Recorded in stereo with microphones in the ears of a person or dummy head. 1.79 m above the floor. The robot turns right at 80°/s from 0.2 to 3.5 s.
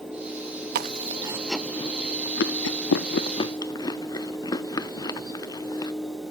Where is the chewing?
60° right (ahead or behind), 0.7 m; by 5.9 s 25° left (ahead or behind), 0.7 m.